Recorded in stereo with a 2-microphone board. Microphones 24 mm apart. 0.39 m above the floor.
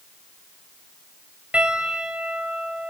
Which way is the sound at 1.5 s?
55° right (ahead or behind).